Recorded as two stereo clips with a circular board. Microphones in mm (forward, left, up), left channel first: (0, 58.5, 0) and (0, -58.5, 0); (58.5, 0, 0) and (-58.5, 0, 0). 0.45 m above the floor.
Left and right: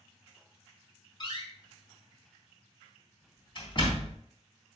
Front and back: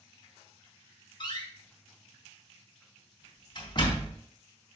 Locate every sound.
1.2 s a door slam: 45° left, 3.5 m